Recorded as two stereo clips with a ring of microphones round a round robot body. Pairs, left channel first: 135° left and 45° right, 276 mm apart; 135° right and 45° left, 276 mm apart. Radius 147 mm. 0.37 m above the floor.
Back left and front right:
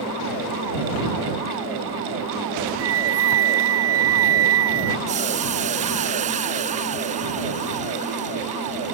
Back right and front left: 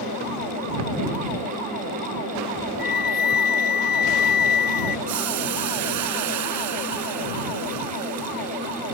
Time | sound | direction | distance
2.8 | a flute | 80° right | ?
5.1 | boiling | 20° left | ?